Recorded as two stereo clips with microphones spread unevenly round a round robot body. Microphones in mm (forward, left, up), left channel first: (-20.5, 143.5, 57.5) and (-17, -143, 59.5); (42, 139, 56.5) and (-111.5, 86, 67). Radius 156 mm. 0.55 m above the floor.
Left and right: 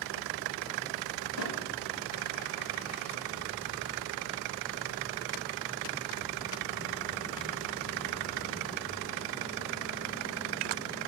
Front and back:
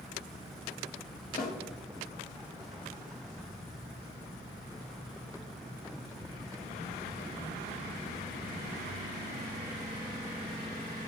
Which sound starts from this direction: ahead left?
A snare drum, at 1.4 s.